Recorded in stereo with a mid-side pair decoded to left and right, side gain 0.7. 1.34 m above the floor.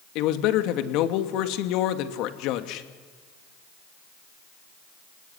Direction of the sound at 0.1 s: 65° left.